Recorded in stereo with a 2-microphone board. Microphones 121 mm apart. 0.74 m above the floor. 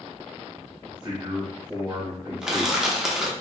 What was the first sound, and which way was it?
A man speaking, 35° right (ahead or behind).